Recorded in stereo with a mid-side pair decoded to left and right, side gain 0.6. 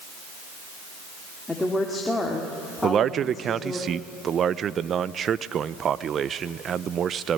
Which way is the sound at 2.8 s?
40° right.